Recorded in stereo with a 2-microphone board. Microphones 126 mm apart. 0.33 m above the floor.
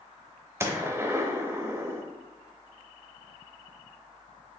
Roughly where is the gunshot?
Right.